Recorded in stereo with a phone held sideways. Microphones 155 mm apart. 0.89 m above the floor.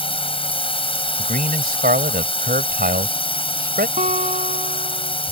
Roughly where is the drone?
Left.